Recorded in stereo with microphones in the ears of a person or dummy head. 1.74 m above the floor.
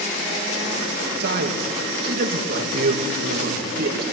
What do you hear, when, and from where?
1.2 s a man speaking: 60° right (ahead or behind), 2.5 m